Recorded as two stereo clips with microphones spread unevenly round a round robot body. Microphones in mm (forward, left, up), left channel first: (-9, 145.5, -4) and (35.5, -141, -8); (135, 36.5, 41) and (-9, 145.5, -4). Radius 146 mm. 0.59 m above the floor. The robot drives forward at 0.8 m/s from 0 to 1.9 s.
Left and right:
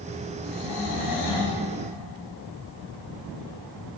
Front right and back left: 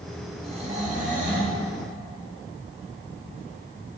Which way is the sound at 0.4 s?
85° left.